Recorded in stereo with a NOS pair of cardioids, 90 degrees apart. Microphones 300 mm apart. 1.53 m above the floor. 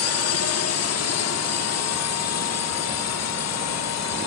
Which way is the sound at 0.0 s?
60° left.